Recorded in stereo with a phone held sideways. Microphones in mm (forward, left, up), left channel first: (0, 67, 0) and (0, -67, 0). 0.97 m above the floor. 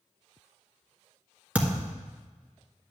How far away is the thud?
About 1.6 m.